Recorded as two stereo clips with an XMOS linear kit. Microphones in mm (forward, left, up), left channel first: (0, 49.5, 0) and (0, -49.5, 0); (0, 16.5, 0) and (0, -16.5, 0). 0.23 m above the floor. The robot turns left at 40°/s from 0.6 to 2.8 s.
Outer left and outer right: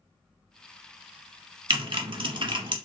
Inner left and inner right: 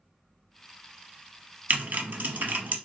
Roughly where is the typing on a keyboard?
Right.